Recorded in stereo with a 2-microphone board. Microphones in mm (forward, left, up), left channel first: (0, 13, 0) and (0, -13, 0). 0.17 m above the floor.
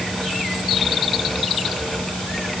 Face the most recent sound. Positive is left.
No sound to turn to.